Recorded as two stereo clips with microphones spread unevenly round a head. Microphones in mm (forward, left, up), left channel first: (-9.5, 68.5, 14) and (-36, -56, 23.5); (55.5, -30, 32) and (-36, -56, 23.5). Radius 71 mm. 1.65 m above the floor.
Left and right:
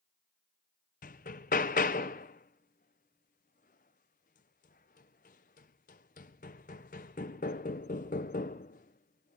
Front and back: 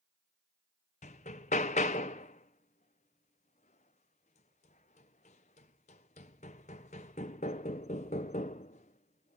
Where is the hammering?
40° left, 0.8 m.